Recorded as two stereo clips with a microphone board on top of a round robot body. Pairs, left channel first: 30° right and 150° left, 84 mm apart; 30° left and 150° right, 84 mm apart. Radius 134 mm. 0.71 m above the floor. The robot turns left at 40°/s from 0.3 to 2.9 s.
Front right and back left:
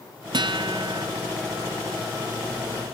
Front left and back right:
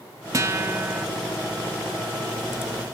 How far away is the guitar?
About 0.8 m.